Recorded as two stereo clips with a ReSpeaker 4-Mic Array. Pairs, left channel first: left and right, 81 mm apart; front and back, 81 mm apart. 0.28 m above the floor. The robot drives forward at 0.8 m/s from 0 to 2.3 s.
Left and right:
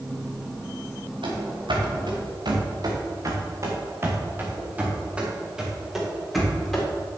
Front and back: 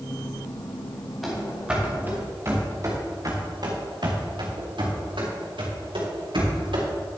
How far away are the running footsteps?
About 3.5 m.